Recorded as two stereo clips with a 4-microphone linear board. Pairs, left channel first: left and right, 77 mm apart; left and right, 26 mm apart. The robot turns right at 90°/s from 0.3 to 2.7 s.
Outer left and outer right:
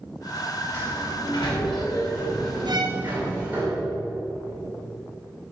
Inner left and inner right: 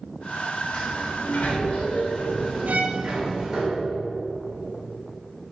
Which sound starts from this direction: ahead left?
A sliding door, at 0.7 s.